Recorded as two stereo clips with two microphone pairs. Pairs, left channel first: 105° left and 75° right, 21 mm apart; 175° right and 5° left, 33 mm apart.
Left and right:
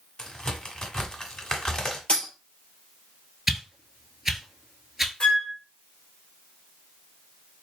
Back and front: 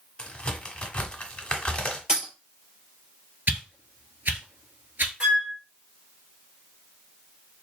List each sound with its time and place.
0.2 s a crack: 140° left, 1.3 m
2.1 s a dropped coin: 70° left, 2.5 m
3.5 s a whoosh: straight ahead, 1.0 m
5.2 s a flute: 70° left, 3.5 m